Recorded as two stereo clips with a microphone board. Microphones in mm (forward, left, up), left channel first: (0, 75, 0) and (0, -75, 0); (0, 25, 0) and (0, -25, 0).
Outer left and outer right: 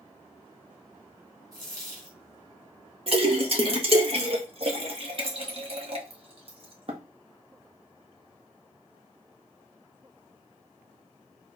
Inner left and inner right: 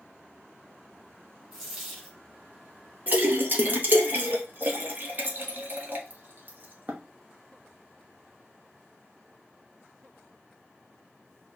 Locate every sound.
1.5 s a dropped coin: 25° right (ahead or behind), 3.5 m
3.1 s a splash: 40° right (ahead or behind), 1.1 m